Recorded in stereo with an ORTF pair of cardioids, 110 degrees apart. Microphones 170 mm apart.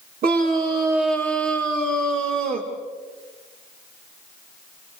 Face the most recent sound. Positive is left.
turn(degrees=-60)